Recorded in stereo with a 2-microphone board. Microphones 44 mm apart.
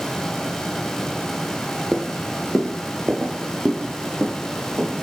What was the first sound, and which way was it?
Footsteps, 5° right (ahead or behind).